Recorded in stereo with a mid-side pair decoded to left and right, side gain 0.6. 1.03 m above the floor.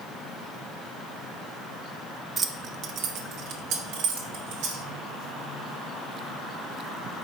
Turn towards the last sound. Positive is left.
turn(degrees=-80)